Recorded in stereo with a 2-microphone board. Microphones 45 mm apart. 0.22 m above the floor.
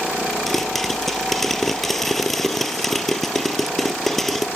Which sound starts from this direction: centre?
A pop, at 0.5 s.